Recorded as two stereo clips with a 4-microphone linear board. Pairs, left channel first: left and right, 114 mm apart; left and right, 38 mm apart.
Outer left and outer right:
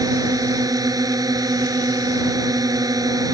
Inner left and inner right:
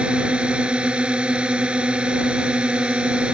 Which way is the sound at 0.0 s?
30° right (ahead or behind).